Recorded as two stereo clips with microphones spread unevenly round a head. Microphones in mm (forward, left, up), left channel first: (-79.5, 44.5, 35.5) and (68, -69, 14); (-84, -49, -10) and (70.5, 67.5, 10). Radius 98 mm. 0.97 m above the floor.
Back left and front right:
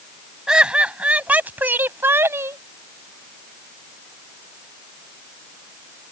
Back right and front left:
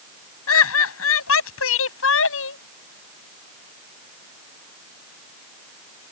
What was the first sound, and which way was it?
Laughter, 125° right.